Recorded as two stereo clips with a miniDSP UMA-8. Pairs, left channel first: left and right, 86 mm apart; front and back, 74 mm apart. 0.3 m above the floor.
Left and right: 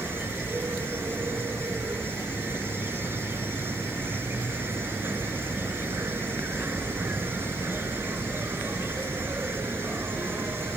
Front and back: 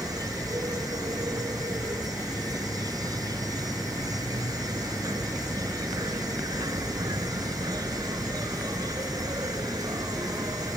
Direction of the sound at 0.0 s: 150° right.